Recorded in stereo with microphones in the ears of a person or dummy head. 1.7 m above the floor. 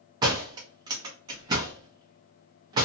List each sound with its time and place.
0.2 s a door slam: 20° right (ahead or behind), 0.6 m